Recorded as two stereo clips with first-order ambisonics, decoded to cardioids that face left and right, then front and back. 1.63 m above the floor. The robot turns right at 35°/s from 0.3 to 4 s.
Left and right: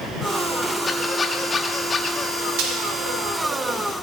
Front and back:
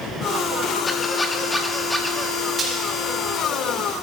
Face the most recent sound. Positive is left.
turn(degrees=-55)